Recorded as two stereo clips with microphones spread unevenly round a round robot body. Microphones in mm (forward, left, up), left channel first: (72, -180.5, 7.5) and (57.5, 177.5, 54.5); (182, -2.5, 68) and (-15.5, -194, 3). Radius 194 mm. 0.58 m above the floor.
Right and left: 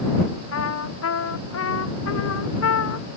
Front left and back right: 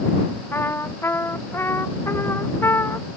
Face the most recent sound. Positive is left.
turn(degrees=-35)